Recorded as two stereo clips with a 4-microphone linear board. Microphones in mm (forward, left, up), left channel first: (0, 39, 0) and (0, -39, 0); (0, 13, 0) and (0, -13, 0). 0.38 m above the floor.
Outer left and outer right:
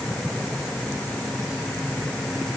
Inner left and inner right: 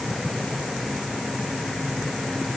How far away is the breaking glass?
I don't hear breaking glass.